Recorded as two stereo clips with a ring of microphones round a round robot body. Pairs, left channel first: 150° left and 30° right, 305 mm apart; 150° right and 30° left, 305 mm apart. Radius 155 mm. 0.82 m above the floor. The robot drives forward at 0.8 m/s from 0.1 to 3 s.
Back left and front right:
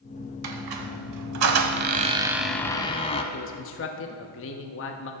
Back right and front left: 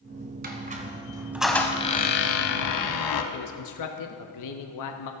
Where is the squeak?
30° right, 1.5 m; by 3.2 s 140° right, 1.2 m.